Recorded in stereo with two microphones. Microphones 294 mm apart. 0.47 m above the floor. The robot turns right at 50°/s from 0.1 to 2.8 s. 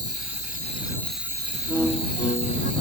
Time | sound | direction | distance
0.0 | an insect | 130° left | ?
1.7 | a violin | 10° right | ?